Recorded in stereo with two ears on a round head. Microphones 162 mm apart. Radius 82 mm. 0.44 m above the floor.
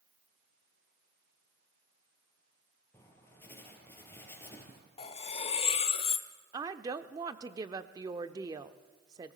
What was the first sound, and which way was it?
Writing, 15° left (ahead or behind).